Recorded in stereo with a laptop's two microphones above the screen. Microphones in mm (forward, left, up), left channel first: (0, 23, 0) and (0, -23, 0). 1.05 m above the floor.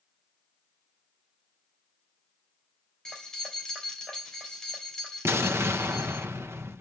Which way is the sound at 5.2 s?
65° right (ahead or behind).